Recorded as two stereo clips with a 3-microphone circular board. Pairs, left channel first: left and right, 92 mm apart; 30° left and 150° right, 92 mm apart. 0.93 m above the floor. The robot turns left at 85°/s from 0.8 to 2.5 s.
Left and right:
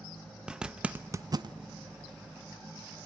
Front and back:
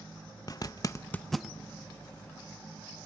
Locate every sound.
0.5 s a zipper: 10° right, 0.7 m; by 1.6 s 75° right, 0.7 m